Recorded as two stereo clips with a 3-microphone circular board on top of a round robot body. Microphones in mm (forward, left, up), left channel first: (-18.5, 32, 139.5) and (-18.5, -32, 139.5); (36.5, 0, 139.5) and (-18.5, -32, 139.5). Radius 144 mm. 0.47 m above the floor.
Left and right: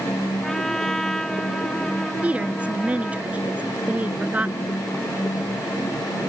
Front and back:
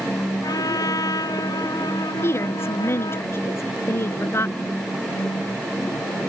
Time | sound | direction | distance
0.4 | a trumpet | 5° left | ?
2.2 | a woman speaking | 20° right | ?